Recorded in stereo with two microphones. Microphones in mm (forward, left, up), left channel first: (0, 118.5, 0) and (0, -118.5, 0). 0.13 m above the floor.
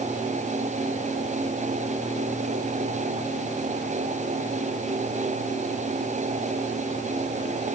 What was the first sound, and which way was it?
Only background noise.